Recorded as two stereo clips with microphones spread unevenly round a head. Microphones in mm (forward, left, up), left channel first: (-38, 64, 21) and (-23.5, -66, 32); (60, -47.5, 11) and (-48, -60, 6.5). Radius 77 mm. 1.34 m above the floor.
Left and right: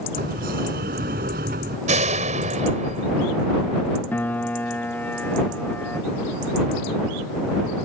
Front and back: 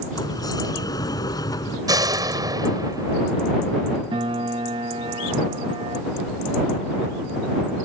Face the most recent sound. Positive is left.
turn(degrees=175)